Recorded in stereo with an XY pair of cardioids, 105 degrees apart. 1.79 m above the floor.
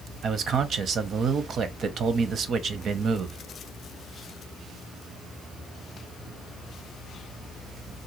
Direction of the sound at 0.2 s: 55° right.